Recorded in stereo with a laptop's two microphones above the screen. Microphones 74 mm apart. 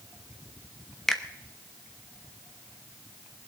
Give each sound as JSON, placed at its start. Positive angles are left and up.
{"t": 1.1, "sound": "a finger snap", "side_deg": 5, "distance_m": 0.8}